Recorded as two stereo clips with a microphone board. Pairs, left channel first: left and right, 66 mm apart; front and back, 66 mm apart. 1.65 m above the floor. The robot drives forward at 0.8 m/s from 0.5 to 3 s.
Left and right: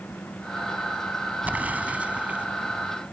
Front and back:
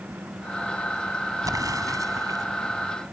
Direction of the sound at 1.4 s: 155° right.